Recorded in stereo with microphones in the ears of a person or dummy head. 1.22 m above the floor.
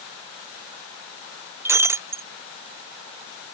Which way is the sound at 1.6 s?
25° right (ahead or behind).